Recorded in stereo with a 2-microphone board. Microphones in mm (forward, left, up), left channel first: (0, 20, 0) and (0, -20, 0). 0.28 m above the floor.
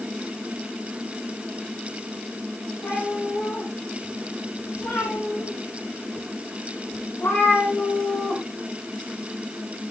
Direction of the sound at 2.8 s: 70° left (ahead or behind).